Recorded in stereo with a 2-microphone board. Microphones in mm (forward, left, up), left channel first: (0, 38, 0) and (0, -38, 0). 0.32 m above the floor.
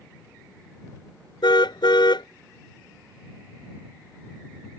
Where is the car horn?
80° left.